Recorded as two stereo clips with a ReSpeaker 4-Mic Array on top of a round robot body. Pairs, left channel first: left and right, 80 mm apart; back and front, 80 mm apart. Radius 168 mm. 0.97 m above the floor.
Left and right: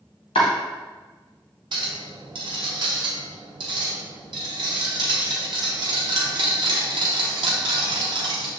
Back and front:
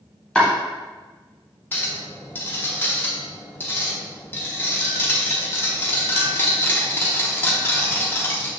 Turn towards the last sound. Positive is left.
turn(degrees=-115)